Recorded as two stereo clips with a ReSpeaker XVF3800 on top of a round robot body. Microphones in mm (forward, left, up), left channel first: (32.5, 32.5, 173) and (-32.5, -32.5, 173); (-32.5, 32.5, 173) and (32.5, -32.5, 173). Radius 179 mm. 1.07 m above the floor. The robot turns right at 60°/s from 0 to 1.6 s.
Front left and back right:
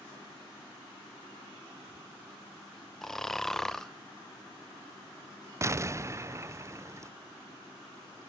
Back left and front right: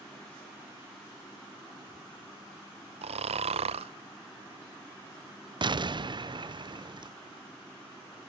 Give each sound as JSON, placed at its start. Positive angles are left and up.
{"t": 3.0, "sound": "snoring", "azimuth_deg": -40, "distance_m": 0.5}
{"t": 5.6, "sound": "an explosion", "azimuth_deg": -75, "distance_m": 0.6}